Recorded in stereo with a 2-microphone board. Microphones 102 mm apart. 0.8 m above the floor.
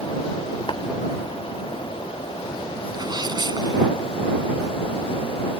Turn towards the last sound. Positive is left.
turn(degrees=-40)  # may be behind; listen again after turning